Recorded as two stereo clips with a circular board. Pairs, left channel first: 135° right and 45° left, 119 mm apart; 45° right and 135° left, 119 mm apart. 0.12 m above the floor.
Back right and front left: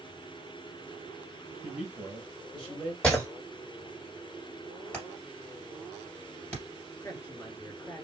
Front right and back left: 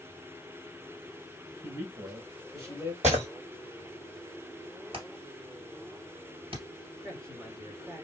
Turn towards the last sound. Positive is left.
turn(degrees=175)